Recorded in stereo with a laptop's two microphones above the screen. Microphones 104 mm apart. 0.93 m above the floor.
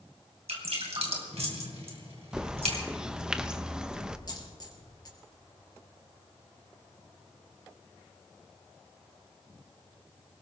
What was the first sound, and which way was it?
Dripping, 70° right (ahead or behind).